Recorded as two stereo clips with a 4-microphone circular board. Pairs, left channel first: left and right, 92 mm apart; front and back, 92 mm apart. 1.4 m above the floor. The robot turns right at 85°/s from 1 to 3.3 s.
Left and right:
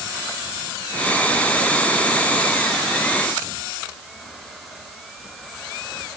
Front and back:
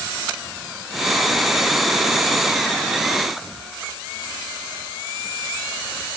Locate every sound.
Only background noise.